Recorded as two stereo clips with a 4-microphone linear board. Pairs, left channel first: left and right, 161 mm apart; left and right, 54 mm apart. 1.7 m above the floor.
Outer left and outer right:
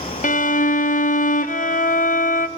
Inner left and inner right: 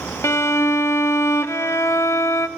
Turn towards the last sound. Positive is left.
turn(degrees=55)  # may be behind; listen again after turning